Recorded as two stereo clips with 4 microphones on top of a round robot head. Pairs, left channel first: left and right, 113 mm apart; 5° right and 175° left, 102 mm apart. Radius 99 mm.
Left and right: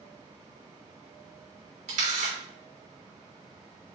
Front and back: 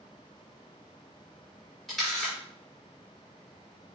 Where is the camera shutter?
95° right, 3.5 m.